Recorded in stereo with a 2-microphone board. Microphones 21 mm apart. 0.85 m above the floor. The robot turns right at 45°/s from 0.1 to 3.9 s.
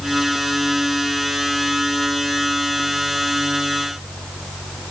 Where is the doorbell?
I don't hear a doorbell.